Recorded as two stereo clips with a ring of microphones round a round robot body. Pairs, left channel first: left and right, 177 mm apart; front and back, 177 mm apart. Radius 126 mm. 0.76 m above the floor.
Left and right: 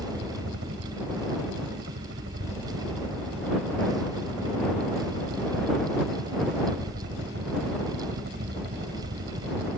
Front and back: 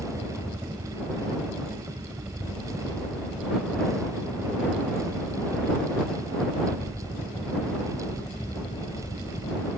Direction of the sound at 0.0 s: 100° right.